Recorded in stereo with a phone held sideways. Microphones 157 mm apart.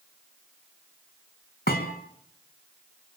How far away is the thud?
About 3.5 m.